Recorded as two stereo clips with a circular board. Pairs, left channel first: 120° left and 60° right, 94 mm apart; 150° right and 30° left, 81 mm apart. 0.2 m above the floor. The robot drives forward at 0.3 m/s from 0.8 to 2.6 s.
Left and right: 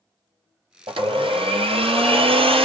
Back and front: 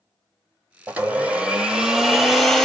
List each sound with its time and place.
0.9 s a blender: 40° right, 1.2 m; by 2.6 s 65° right, 0.9 m